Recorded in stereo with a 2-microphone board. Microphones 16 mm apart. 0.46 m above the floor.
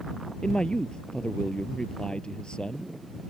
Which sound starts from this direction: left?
A man speaking, at 0.4 s.